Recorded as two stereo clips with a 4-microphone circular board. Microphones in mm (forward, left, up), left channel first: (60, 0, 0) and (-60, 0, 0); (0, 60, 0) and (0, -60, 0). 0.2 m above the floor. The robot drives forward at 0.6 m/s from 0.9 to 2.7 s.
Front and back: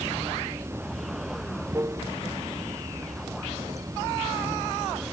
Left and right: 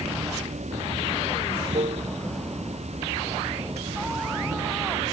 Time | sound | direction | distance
0.0 | running water | 110° right | ?